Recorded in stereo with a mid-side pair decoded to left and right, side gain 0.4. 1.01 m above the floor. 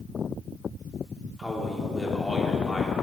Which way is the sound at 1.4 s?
20° left.